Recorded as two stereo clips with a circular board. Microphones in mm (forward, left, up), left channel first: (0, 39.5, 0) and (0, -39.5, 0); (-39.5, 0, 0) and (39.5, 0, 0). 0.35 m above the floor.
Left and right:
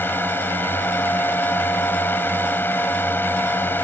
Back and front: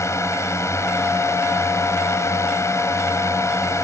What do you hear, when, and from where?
0.0 s a drone: 145° left